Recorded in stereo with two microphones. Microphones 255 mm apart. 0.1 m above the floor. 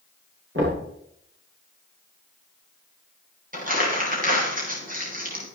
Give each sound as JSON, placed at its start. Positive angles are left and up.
{"t": 0.6, "sound": "knocking", "side_deg": -50, "distance_m": 8.5}
{"t": 3.5, "sound": "crumpling", "side_deg": -30, "distance_m": 8.0}